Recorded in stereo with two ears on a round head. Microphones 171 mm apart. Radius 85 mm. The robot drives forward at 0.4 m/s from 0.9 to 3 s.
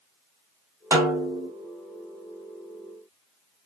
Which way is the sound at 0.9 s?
15° right (ahead or behind).